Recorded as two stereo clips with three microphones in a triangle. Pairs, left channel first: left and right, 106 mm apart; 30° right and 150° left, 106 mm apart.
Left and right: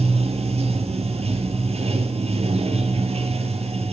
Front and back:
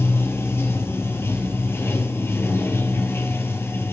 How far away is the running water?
About 1.2 m.